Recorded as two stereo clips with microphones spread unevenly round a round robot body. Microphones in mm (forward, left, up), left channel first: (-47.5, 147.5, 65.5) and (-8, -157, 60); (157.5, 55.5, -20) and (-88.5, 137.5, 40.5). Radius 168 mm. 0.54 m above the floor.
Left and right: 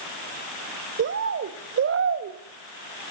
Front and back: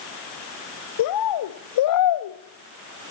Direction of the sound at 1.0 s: 25° right.